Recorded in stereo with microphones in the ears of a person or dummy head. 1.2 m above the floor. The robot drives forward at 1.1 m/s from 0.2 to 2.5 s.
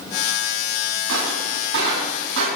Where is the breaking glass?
75° right (ahead or behind), 7.5 m; by 2.5 s 65° right (ahead or behind), 8 m.